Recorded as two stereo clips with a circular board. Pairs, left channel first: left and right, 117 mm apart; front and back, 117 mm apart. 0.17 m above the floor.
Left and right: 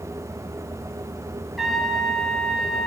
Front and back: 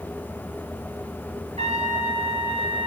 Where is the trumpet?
Straight behind, 1.1 m.